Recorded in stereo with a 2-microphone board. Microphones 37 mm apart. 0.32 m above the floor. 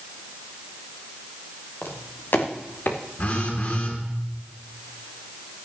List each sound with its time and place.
1.8 s footsteps: 75° left (ahead or behind), 3 m; by 3.0 s 70° left (ahead or behind), 2 m
3.2 s a phone buzzing: 55° left (ahead or behind), 4.5 m